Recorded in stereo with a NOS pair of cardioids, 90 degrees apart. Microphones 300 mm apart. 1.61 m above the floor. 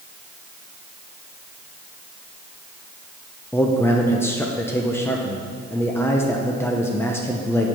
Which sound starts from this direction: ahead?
A man speaking, at 3.5 s.